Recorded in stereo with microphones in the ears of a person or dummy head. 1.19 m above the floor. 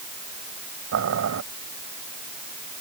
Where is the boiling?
75° right (ahead or behind).